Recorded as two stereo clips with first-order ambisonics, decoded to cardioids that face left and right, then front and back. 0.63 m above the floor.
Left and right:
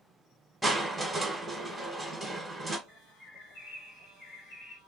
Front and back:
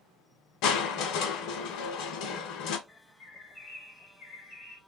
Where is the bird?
60° left, 1.3 m.